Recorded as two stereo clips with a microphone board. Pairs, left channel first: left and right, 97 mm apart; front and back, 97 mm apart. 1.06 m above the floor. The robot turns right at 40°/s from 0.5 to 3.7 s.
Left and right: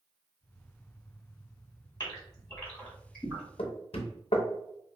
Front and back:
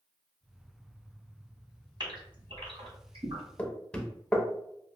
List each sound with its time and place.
2.0 s a gasp: 135° left, 1.9 m; by 3.4 s 165° right, 1.9 m
3.6 s knocking: 75° left, 0.6 m; by 4.5 s 80° left, 0.6 m